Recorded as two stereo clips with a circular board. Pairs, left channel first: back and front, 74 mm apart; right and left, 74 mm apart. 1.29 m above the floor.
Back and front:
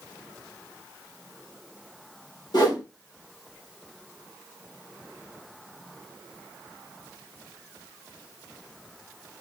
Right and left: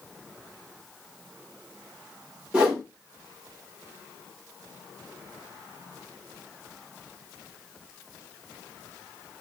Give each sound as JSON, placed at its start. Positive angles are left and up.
{"t": 2.5, "sound": "a whoosh", "azimuth_deg": 165, "distance_m": 1.8}